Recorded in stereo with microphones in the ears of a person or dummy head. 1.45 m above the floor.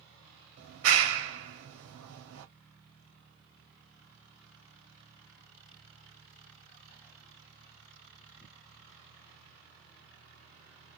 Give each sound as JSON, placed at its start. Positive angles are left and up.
{"t": 0.6, "sound": "a clap", "side_deg": -70, "distance_m": 1.9}